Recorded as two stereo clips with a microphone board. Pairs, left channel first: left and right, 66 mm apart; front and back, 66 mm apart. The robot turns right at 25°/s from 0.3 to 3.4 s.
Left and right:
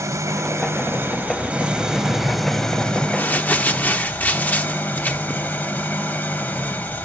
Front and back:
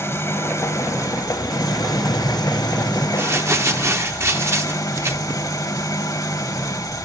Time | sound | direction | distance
0.0 | an engine running | 50° right | 1.4 m
1.6 | keys jangling | 20° left | 3 m
3.2 | crumpling | 140° left | 1.1 m